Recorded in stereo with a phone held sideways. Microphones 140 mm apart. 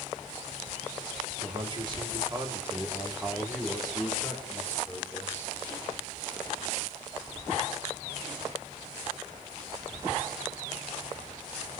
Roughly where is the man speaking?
Right.